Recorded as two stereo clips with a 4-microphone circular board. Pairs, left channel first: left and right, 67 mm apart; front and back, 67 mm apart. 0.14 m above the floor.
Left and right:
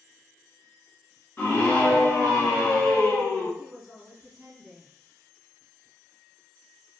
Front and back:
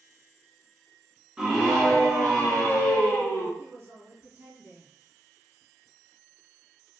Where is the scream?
120° left, 1.3 m; by 3.5 s 40° left, 1.8 m.